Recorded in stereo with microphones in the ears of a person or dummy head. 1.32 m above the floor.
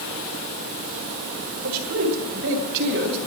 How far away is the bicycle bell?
No bicycle bell in this recording.